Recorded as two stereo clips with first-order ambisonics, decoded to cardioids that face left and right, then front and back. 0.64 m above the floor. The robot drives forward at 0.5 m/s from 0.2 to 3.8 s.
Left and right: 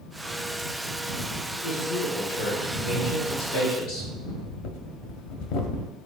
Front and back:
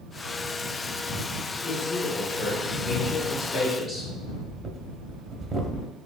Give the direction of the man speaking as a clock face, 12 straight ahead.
10 o'clock.